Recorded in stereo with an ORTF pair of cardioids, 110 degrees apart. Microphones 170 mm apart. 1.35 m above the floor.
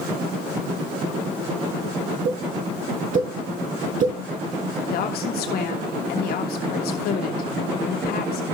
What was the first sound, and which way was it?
A pop, 55° right.